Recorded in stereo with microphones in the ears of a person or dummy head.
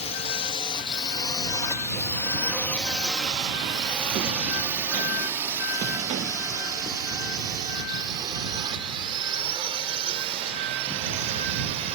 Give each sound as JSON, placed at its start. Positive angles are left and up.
{"t": 0.0, "sound": "a drone", "side_deg": 35}